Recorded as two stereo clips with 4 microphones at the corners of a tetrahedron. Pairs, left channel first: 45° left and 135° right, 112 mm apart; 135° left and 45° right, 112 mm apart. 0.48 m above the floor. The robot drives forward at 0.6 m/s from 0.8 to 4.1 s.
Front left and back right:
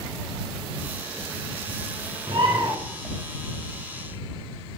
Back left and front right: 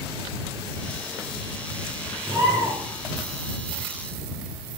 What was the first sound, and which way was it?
A bird, 100° right.